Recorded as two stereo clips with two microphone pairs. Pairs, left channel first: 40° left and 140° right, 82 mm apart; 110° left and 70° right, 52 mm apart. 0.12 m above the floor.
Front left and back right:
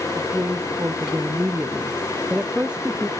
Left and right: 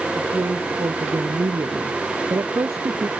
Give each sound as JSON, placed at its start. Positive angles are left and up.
{"t": 0.1, "sound": "a woman speaking", "azimuth_deg": -75}